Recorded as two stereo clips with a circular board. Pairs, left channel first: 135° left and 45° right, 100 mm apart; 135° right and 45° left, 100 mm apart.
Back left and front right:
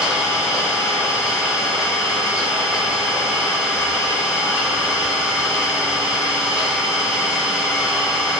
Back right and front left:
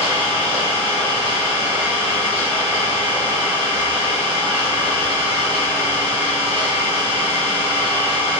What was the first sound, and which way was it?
An engine running, 35° left.